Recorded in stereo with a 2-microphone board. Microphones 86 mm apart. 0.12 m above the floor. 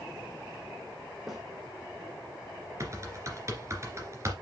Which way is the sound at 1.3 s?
Centre (ahead or behind).